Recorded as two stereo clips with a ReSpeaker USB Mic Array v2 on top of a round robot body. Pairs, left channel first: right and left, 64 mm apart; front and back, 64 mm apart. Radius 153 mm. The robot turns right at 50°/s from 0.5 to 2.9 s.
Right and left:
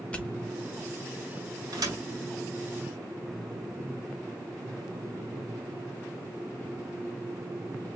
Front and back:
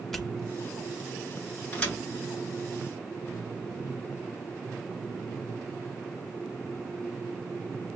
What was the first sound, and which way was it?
A pop, 75° right.